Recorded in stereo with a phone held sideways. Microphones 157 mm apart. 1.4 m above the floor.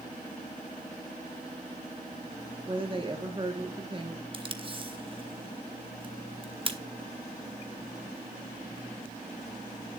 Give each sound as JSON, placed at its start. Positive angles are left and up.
{"t": 2.7, "sound": "a woman speaking", "side_deg": -35, "distance_m": 1.5}
{"t": 4.3, "sound": "tape being pulled", "side_deg": -35, "distance_m": 1.1}